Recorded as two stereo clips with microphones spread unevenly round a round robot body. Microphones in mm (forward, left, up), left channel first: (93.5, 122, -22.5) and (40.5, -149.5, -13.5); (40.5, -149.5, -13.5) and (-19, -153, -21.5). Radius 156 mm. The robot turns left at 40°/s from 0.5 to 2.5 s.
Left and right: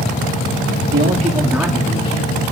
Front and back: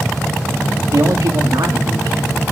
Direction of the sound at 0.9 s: 160° right.